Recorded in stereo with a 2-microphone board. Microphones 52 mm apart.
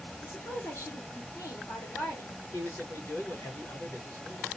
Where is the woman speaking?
55° left (ahead or behind), 1.8 m.